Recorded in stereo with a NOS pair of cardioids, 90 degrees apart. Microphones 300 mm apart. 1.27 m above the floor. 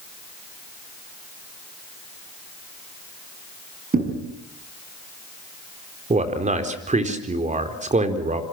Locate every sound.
3.9 s a thud: 30° right, 6 m
6.1 s a man speaking: 25° right, 4 m